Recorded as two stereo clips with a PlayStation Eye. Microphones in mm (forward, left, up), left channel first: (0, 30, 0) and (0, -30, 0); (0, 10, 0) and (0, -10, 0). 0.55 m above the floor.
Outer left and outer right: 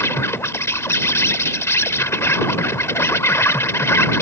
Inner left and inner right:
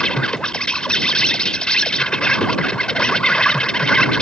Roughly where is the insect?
Left.